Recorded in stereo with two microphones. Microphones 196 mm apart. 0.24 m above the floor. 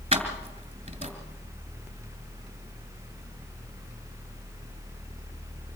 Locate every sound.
0.1 s keys jangling: 30° right (ahead or behind), 2.5 m